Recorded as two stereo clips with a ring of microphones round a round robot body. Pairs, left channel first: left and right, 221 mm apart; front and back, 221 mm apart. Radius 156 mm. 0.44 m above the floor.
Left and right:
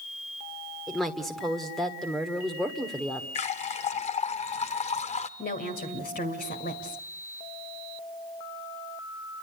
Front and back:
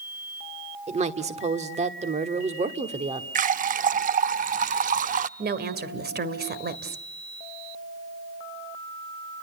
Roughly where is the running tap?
Behind left.